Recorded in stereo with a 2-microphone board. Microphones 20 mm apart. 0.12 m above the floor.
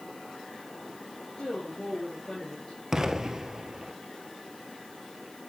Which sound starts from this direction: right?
An explosion, at 2.9 s.